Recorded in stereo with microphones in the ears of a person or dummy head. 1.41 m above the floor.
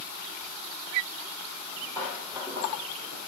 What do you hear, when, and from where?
1.6 s footsteps: 10° right (ahead or behind), 3 m; by 3.2 s 25° right (ahead or behind), 2.5 m